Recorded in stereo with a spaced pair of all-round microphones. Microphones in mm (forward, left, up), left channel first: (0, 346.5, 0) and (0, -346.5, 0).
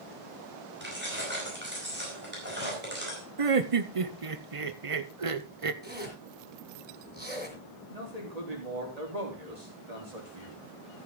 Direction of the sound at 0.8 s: 15° right (ahead or behind).